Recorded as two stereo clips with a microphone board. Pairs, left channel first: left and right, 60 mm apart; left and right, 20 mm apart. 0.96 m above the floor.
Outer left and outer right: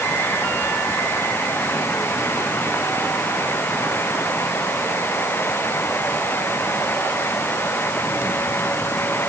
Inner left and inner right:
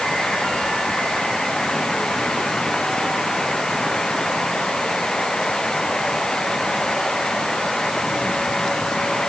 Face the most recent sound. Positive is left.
No sound to turn to.